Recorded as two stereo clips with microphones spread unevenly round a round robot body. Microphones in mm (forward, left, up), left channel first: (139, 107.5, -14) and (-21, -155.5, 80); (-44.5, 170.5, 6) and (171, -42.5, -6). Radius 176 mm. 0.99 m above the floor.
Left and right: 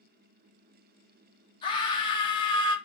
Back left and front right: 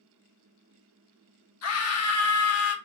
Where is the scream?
110° left, 0.6 m.